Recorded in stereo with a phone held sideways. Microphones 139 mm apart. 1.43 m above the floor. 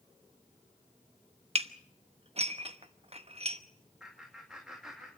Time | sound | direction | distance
1.6 | dishes clattering | 45° right (ahead or behind) | 0.9 m
4.0 | laughter | 5° right (ahead or behind) | 2.5 m